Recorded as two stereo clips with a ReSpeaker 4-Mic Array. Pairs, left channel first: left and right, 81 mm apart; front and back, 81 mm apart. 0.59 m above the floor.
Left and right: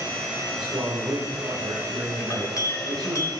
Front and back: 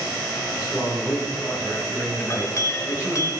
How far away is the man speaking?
About 3.5 m.